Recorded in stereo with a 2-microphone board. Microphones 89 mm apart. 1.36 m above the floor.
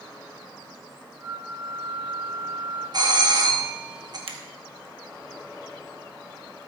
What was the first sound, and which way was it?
A flute, 10° left (ahead or behind).